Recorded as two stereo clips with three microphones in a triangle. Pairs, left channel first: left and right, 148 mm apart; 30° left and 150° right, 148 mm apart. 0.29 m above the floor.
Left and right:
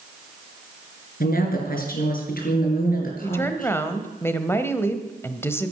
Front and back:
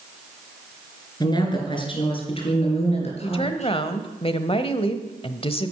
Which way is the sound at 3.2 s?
30° left.